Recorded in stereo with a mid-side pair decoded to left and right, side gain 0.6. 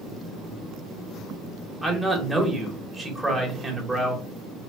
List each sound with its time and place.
1.8 s a man speaking: 10° right, 1.5 m